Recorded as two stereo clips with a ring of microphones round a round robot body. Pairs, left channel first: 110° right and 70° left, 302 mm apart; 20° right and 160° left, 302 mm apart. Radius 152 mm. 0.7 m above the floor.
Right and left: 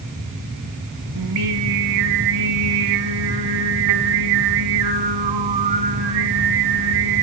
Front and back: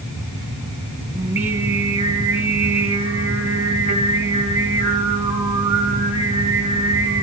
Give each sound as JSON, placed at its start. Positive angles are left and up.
{"t": 1.1, "sound": "singing", "azimuth_deg": 75, "distance_m": 2.5}